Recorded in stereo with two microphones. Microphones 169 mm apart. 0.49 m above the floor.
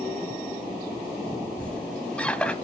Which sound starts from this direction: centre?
A squeak, at 1.6 s.